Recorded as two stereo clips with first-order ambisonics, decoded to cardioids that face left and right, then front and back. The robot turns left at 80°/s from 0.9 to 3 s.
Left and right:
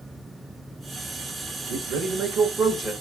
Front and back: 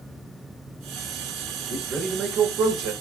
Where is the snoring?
I don't hear snoring.